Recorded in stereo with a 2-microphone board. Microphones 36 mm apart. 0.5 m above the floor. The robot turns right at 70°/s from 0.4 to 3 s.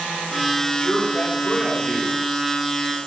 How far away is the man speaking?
About 2 m.